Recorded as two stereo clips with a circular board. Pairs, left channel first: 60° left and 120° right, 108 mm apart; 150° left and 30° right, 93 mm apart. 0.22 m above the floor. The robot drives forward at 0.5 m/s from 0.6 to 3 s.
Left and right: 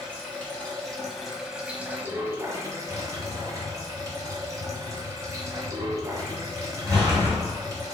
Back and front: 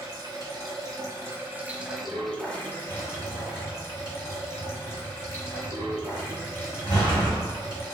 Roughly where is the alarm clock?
No alarm clock in this recording.